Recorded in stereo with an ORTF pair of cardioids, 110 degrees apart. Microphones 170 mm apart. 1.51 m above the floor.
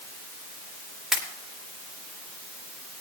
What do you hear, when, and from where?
1.1 s a pop: 5° right, 3.5 m